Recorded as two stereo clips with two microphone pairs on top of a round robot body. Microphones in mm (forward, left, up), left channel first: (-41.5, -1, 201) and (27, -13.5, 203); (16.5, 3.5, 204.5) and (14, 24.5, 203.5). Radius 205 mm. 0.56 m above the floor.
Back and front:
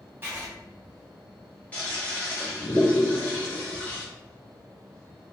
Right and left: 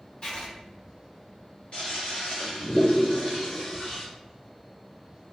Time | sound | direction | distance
0.2 | writing | 60° right | 1.8 m
1.7 | a toilet flushing | 120° right | 1.0 m